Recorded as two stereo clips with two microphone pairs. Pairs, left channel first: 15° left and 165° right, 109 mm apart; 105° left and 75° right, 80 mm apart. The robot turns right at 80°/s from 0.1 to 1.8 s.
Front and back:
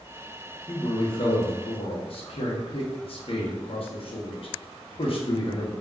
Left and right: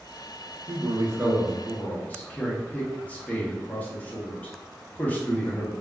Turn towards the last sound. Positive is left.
turn(degrees=35)